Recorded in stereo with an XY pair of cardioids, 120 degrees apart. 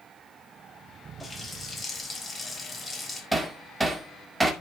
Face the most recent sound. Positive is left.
turn(degrees=-15)